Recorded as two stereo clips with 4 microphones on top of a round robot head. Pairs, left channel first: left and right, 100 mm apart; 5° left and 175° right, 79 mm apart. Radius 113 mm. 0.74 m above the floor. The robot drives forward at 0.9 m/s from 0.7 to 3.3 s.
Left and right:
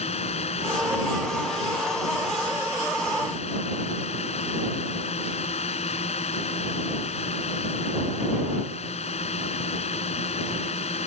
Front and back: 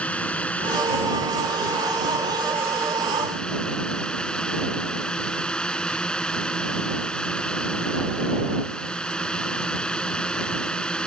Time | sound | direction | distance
0.0 | a drone | 80° left | ?